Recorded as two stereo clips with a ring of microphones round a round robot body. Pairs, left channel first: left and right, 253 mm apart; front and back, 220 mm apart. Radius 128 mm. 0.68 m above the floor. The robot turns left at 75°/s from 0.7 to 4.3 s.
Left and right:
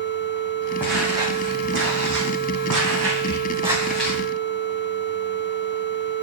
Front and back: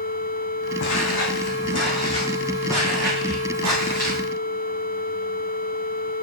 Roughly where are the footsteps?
Ahead.